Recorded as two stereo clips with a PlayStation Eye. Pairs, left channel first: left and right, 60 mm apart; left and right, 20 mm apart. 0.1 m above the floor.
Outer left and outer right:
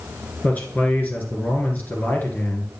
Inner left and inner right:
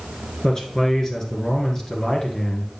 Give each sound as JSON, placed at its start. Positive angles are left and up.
{"t": 0.4, "sound": "a man speaking", "side_deg": 30, "distance_m": 1.7}